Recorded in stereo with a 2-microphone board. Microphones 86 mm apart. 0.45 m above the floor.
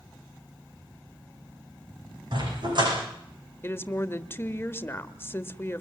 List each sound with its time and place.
2.3 s a dog barking: 60° right (ahead or behind), 10 m
3.6 s a woman speaking: 25° left (ahead or behind), 1.4 m